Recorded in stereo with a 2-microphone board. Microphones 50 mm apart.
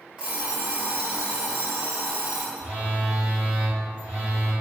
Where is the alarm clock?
20° right (ahead or behind), 0.9 m.